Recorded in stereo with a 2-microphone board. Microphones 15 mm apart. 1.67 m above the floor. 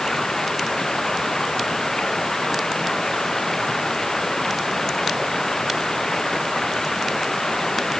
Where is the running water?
20° left (ahead or behind).